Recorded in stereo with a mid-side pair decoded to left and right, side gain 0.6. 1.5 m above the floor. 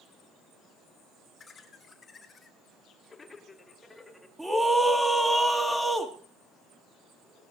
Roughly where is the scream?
Ahead.